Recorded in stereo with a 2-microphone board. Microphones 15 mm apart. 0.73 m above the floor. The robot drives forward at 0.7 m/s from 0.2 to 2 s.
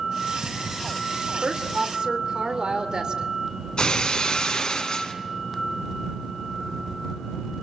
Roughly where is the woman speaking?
Right.